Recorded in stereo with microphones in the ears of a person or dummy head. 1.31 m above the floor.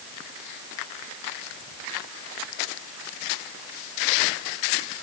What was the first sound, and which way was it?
Only background noise.